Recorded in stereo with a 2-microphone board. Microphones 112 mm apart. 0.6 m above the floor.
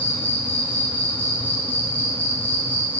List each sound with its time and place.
0.0 s an insect: 15° left (ahead or behind), 1.7 m